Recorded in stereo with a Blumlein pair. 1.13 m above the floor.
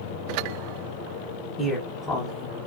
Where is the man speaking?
10° right, 1.0 m; by 2.7 s 25° left, 0.7 m.